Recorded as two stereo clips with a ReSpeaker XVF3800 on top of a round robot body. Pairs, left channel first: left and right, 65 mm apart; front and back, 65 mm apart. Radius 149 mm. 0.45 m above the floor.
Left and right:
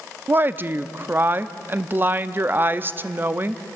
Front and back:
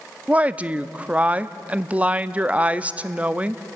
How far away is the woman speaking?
About 0.8 m.